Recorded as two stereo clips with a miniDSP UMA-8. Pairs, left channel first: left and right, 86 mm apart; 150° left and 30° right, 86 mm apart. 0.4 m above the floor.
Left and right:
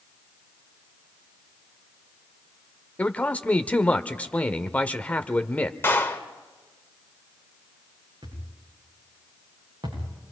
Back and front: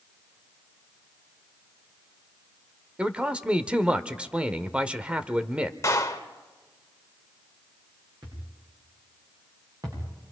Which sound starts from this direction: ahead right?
A thud, at 8.2 s.